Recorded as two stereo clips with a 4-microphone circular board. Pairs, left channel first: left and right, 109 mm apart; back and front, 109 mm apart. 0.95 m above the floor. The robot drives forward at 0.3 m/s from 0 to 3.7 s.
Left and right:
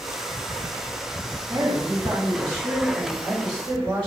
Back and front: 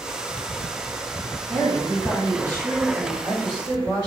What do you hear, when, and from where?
1.5 s a woman speaking: 110° right, 2 m; by 4.1 s 125° right, 2.5 m